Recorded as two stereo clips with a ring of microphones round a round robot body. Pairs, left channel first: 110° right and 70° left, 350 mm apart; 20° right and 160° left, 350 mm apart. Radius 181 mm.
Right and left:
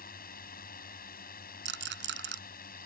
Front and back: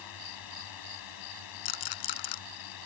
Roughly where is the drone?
Ahead right.